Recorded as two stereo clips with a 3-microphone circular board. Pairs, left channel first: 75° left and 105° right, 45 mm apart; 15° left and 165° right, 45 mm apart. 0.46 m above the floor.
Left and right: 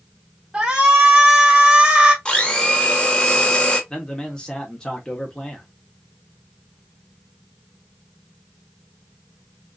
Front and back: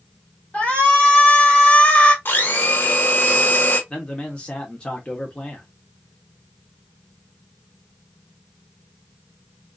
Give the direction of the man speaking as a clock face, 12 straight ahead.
11 o'clock.